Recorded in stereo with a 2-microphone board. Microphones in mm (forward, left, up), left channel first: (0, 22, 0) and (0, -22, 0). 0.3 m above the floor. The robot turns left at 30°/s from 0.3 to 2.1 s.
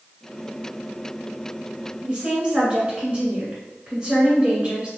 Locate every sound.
2.0 s a woman speaking: 25° right (ahead or behind), 1.1 m